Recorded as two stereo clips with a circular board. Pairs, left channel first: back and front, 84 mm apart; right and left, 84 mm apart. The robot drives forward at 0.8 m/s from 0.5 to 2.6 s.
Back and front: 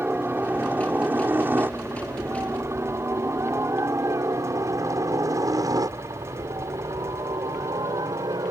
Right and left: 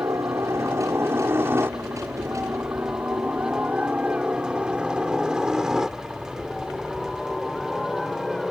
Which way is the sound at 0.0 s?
60° left.